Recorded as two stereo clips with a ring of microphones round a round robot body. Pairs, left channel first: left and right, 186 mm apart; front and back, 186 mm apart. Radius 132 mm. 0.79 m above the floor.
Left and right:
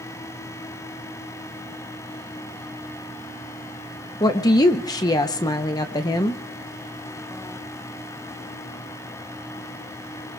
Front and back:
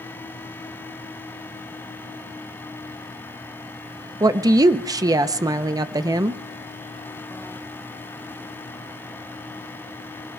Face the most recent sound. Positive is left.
turn(degrees=135)